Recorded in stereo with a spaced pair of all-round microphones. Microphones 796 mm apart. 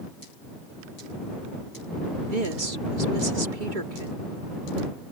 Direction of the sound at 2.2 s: 80° right.